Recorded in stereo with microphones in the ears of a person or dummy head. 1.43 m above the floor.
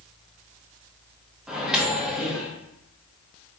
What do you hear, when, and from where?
1.5 s a microwave: 5° right (ahead or behind), 0.5 m